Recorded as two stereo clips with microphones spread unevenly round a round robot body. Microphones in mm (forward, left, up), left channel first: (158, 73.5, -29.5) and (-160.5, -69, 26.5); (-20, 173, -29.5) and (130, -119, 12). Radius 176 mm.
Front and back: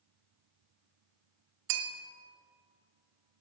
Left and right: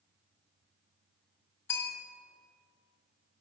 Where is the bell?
160° right, 1.3 m.